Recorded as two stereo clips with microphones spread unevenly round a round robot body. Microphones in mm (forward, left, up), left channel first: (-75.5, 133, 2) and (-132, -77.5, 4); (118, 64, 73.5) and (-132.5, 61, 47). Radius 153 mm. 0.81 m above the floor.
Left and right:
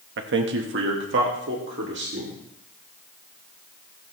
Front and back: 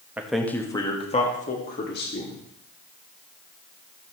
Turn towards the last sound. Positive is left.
turn(degrees=-50)